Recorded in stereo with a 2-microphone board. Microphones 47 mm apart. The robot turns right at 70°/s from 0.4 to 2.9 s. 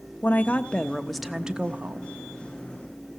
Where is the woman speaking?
125° left, 1.1 m; by 2.1 s 115° right, 1.1 m.